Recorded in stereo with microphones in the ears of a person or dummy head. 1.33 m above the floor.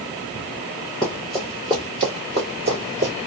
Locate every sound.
1.0 s running footsteps: 10° left (ahead or behind), 1.5 m; by 3.1 s 35° right (ahead or behind), 1.9 m